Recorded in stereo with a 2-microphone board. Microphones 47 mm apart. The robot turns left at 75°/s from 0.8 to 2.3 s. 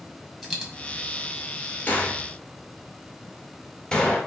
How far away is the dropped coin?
About 1.5 m.